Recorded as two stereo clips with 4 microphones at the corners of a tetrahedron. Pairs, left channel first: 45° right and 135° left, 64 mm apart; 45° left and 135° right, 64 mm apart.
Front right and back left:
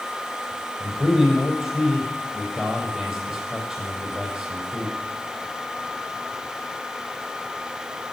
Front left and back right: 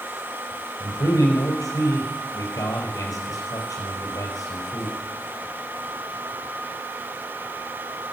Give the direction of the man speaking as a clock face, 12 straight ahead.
10 o'clock.